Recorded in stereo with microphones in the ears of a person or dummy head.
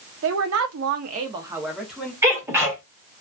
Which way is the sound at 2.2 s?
10° right (ahead or behind).